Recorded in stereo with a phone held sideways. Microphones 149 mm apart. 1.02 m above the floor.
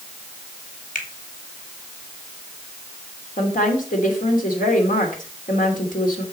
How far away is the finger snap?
About 2 m.